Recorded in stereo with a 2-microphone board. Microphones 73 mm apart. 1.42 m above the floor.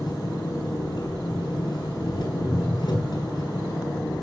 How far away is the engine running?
About 6.5 m.